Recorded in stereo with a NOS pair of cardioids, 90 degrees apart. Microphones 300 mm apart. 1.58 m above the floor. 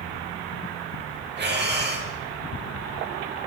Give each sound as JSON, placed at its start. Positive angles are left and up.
{"t": 1.4, "sound": "breathing", "azimuth_deg": -35, "distance_m": 6.5}